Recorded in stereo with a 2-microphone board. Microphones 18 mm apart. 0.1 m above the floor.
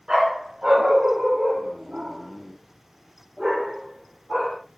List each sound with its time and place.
0.1 s a dog barking: 55° right (ahead or behind), 4.5 m; by 4.6 s 5° right (ahead or behind), 3 m